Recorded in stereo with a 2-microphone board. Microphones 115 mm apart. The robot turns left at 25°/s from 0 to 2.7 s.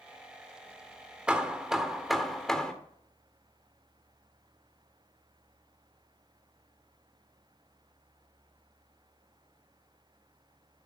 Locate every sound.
1.3 s hammering: 10° right (ahead or behind), 1.1 m; by 2.7 s 5° left (ahead or behind), 1.1 m